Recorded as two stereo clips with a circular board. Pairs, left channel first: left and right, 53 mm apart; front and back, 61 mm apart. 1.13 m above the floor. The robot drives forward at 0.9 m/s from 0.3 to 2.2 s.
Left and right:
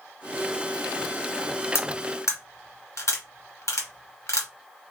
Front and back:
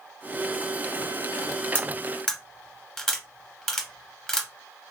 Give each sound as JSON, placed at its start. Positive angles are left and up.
{"t": 1.8, "sound": "cutlery clinking", "azimuth_deg": 65, "distance_m": 1.2}